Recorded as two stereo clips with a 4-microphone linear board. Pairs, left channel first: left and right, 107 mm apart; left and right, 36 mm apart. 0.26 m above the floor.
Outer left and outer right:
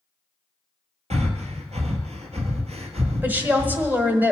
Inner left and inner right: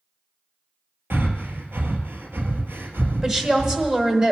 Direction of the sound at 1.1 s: 75° right (ahead or behind).